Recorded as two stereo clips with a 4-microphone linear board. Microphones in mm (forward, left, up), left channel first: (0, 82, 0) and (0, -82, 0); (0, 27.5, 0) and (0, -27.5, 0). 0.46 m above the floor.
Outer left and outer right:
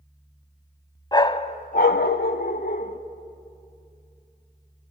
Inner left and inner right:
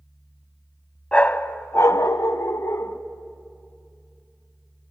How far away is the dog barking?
About 0.6 m.